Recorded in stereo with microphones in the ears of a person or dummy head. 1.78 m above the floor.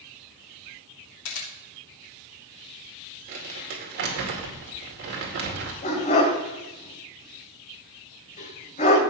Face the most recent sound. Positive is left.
turn(degrees=40)  # may be behind; listen again after turning